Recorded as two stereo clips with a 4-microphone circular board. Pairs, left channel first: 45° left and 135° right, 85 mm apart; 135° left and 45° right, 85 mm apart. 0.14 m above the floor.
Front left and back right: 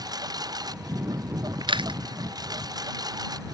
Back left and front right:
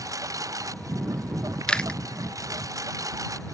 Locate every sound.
0.0 s a lawn mower: 95° right
1.7 s chewing: 145° right